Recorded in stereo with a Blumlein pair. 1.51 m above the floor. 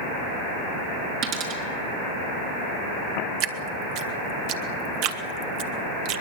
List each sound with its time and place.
1.2 s a dropped coin: 35° right, 6 m
3.4 s dripping: 40° right, 1.6 m